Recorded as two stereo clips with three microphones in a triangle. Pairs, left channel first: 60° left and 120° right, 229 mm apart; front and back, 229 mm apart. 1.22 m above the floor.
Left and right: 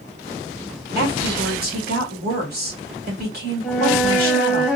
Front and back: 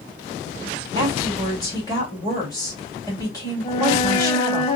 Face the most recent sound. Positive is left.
turn(degrees=-35)